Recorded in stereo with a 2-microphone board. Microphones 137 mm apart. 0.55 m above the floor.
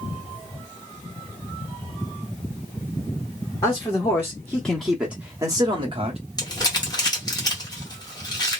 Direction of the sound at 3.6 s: 30° left (ahead or behind).